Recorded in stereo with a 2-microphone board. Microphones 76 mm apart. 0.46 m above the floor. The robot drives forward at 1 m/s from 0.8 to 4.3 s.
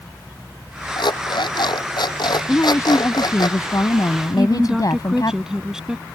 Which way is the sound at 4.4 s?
5° right (ahead or behind).